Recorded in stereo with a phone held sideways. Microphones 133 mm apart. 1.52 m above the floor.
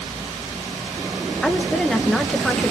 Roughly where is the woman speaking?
Centre.